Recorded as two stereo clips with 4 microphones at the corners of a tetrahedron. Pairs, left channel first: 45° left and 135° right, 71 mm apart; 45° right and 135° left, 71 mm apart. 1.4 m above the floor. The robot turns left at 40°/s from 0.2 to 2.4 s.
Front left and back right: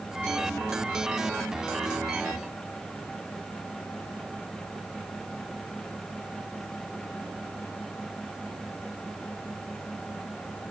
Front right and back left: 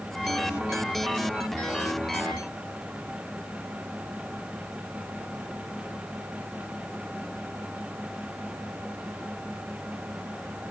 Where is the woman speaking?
I don't hear a woman speaking.